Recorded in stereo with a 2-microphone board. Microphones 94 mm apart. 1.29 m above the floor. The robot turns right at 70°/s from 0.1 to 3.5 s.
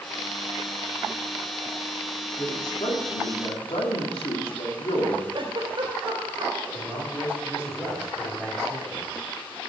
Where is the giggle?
60° right (ahead or behind), 2.5 m.